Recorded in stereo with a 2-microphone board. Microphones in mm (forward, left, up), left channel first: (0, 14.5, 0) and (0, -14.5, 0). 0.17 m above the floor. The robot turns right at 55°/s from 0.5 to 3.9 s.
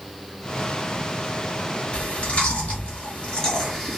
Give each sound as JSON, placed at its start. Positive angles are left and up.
{"t": 1.9, "sound": "chewing", "side_deg": 45, "distance_m": 2.0}